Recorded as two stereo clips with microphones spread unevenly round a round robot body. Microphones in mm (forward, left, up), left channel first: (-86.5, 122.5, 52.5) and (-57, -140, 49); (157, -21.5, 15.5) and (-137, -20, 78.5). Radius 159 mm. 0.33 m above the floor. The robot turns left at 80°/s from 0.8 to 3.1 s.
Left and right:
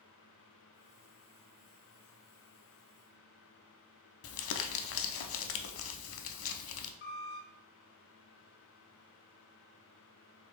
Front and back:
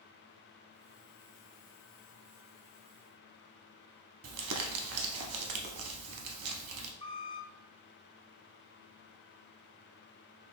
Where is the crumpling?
135° left, 0.5 m.